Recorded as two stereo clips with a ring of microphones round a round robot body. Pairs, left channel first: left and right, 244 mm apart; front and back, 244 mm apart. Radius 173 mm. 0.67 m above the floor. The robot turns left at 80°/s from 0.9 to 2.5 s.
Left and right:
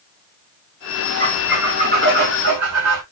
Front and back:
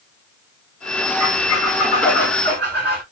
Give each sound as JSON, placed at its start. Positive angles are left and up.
{"t": 1.2, "sound": "a squeak", "azimuth_deg": 20, "distance_m": 1.6}